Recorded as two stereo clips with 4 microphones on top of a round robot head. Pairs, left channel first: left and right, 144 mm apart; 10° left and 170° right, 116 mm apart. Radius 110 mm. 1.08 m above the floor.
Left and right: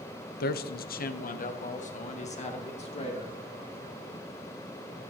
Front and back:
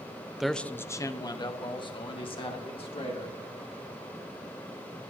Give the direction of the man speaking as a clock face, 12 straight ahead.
9 o'clock.